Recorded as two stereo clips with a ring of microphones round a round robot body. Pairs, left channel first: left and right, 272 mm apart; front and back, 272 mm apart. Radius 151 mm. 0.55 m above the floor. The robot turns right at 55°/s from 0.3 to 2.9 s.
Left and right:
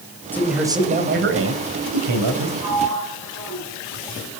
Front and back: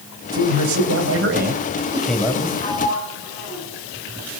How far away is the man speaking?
About 3 m.